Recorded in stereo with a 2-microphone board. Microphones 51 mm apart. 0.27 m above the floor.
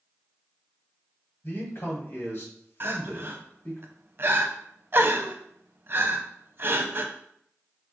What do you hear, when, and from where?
1.4 s a man speaking: 45° left (ahead or behind), 1.7 m
2.8 s crying: 50° right (ahead or behind), 0.5 m